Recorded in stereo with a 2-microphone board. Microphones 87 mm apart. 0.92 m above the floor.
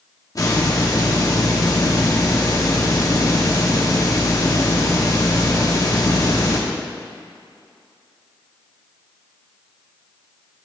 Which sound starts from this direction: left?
A hiss, at 0.3 s.